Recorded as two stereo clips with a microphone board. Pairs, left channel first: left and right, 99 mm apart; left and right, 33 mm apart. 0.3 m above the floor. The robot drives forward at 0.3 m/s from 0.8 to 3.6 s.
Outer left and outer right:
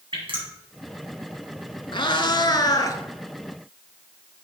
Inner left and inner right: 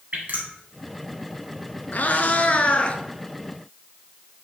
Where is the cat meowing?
55° left (ahead or behind), 0.6 m; by 3.0 s 35° left (ahead or behind), 0.8 m.